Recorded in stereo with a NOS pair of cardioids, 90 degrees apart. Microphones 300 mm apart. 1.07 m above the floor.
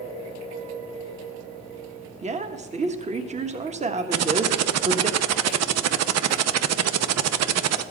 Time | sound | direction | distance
2.2 | a woman speaking | 25° right | 1.3 m
4.1 | typing on a keyboard | 60° right | 0.7 m